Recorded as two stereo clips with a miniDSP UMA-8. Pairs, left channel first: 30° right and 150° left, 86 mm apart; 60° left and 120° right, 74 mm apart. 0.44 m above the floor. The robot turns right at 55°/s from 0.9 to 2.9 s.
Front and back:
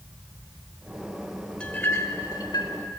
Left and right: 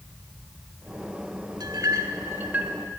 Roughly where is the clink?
Right.